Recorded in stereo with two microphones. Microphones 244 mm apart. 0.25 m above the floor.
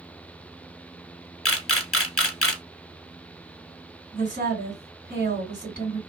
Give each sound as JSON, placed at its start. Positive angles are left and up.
{"t": 1.4, "sound": "a camera shutter", "side_deg": 65, "distance_m": 0.6}
{"t": 4.1, "sound": "a woman speaking", "side_deg": -40, "distance_m": 1.9}